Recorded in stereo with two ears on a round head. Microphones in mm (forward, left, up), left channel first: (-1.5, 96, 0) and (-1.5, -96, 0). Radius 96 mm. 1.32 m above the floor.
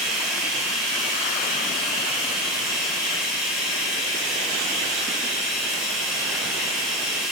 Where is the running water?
Centre (ahead or behind), 4 m.